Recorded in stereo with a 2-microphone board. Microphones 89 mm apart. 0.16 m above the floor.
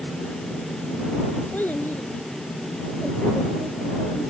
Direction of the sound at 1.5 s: 20° left (ahead or behind).